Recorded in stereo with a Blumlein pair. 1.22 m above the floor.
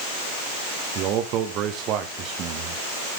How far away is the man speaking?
About 1.8 m.